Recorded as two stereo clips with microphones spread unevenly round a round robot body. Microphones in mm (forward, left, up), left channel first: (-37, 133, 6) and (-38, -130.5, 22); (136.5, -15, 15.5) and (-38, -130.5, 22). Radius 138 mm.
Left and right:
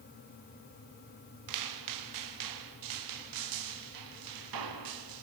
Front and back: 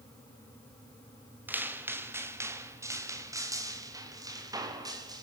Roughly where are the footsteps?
Ahead right.